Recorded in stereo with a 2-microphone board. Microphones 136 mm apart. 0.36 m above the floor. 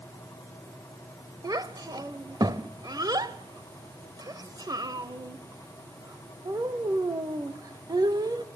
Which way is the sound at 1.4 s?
30° right (ahead or behind).